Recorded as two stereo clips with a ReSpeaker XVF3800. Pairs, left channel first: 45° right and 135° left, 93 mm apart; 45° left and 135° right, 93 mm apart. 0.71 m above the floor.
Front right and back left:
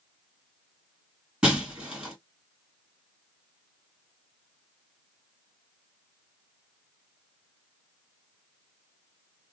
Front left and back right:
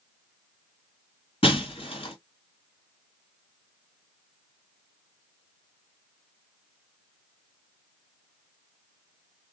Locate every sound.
1.4 s breaking glass: 55° left, 2 m